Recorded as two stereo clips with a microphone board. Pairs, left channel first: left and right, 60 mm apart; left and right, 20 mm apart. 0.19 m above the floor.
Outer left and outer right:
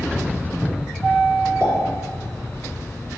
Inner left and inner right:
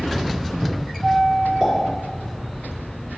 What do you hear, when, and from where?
1.6 s a pop: 40° right (ahead or behind), 2.5 m